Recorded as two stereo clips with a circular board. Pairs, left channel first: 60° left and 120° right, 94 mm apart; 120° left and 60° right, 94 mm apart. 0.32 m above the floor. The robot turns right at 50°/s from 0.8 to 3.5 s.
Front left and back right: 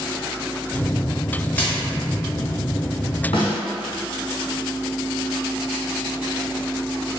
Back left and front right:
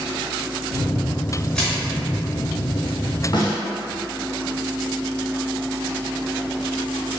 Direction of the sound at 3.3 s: 80° left.